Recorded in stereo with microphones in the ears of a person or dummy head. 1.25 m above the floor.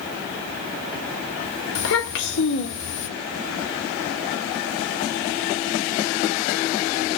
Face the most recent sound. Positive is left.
turn(degrees=65)  # may be behind; listen again after turning